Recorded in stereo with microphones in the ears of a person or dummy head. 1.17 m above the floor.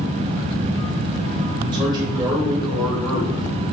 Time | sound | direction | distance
1.7 | a man speaking | 25° right (ahead or behind) | 3 m